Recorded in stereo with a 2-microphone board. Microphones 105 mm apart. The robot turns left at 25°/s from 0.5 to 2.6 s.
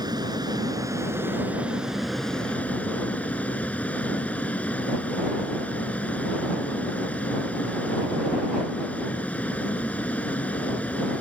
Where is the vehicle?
140° right; by 11.2 s 165° left.